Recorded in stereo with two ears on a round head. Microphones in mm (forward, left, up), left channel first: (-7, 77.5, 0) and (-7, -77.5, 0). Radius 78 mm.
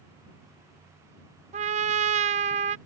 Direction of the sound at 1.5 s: 40° right (ahead or behind).